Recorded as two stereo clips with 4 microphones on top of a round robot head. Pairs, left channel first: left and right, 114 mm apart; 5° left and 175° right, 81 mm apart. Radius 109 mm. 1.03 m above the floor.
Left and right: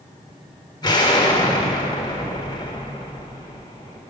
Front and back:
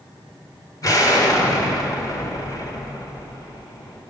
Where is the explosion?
40° left, 1.5 m.